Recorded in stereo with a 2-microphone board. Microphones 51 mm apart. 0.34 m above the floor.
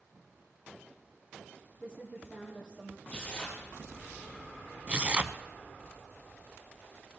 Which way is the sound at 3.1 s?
25° left (ahead or behind).